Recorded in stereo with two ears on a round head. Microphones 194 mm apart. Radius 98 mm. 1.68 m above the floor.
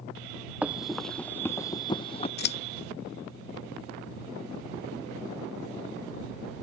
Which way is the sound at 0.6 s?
5° right (ahead or behind).